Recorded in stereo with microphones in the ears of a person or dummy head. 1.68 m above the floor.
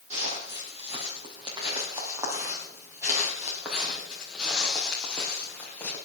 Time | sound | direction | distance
0.1 | footsteps | 40° right (ahead or behind) | 3.5 m